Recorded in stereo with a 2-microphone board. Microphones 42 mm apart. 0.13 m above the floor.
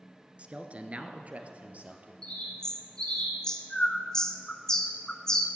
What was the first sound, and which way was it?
A man speaking, 30° right (ahead or behind).